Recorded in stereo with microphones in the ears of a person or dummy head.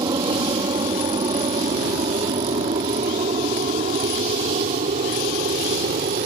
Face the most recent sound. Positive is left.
turn(degrees=-40)  # may be behind; listen again after turning